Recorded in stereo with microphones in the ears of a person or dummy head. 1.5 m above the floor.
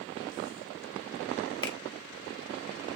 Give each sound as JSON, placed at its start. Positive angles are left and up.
{"t": 1.6, "sound": "a finger snap", "side_deg": 25, "distance_m": 0.6}